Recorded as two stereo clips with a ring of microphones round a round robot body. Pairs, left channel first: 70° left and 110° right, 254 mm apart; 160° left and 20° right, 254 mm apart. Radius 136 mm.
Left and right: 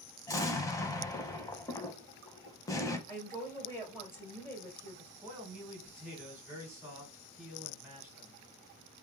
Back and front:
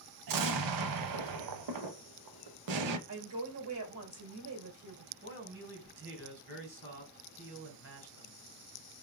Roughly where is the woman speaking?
Ahead.